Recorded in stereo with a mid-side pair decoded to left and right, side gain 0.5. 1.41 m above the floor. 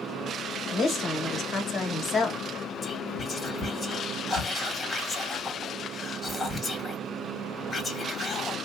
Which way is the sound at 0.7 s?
50° left.